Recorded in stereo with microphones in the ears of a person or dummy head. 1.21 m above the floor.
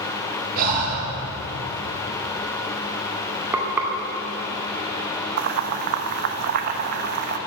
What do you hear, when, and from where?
0.6 s breathing: 50° right (ahead or behind), 6 m
3.5 s frying: 5° right (ahead or behind), 2 m
5.4 s boiling: 55° right (ahead or behind), 1.0 m